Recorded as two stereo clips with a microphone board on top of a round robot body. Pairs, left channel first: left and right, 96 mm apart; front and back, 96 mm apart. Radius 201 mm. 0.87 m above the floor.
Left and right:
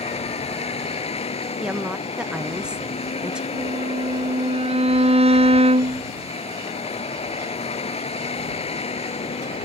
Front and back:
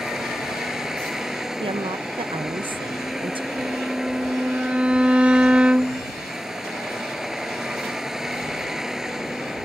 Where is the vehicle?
95° left.